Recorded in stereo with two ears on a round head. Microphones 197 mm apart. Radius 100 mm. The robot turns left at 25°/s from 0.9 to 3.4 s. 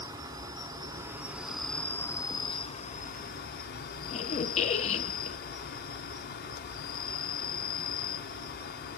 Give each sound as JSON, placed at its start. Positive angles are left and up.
{"t": 0.0, "sound": "an insect", "azimuth_deg": -165, "distance_m": 1.4}
{"t": 4.1, "sound": "a squeak", "side_deg": 30, "distance_m": 0.7}